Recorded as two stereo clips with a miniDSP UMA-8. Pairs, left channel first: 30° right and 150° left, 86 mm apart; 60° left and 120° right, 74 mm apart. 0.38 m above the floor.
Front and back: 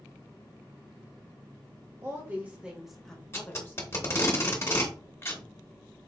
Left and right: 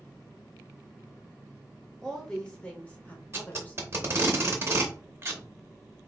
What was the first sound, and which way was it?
A woman speaking, 135° left.